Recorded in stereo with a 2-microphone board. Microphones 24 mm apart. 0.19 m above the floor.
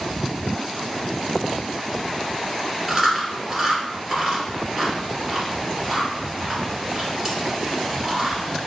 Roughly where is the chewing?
Centre.